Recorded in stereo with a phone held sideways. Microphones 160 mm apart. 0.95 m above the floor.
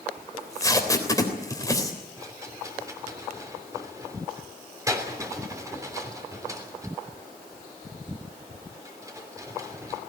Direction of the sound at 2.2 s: 20° right (ahead or behind).